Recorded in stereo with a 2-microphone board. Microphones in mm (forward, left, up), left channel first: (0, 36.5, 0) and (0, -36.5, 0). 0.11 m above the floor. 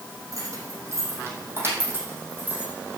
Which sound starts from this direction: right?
Keys jangling, at 0.3 s.